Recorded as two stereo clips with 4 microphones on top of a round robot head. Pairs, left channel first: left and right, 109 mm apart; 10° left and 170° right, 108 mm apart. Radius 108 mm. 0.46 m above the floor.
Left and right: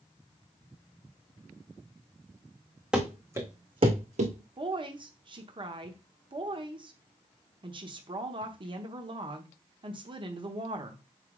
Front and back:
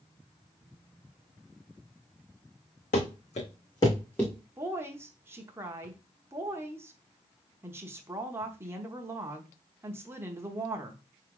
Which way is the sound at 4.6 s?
110° right.